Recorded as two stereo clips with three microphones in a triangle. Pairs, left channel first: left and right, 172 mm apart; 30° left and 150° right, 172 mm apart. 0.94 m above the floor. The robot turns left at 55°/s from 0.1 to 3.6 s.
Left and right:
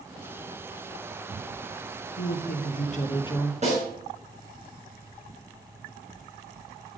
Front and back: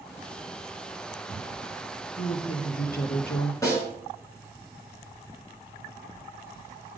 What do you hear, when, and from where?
2.2 s a woman speaking: 90° left, 1.2 m; by 3.5 s 20° left, 1.2 m
3.6 s a snare drum: 45° right, 5.5 m